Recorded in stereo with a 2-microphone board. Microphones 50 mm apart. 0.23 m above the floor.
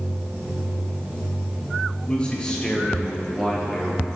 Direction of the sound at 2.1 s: 25° left (ahead or behind).